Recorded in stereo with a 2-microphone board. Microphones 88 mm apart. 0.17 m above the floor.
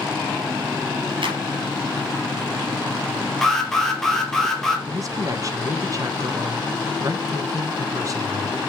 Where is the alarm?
5° left (ahead or behind), 3 m.